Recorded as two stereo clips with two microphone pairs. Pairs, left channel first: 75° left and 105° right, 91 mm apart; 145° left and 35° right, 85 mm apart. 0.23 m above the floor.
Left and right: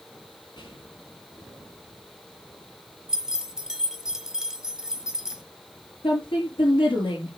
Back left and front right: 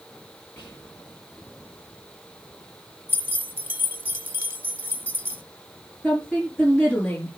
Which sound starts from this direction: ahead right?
Keys jangling, at 3.1 s.